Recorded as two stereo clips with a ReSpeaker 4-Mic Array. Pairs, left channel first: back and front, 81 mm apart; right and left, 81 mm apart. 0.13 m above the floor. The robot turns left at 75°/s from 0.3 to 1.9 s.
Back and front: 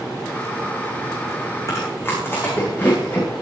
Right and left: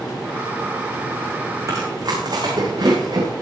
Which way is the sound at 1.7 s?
135° left.